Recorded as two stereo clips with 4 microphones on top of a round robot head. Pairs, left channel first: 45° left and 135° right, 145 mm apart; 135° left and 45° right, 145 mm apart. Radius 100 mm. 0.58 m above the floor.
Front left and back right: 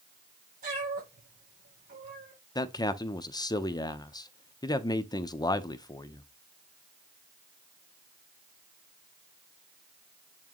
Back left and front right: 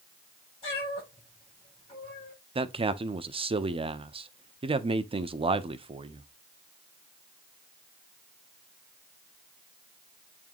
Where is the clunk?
I don't hear a clunk.